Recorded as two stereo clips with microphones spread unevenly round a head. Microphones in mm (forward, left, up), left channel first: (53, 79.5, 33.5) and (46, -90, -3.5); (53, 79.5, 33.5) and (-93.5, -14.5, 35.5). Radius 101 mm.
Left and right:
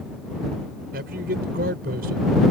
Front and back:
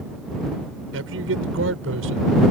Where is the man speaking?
140° right.